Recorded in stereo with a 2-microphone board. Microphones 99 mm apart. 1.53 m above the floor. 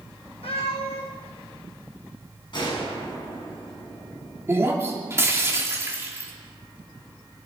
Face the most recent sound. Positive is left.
turn(degrees=-25)  # may be behind; listen again after turning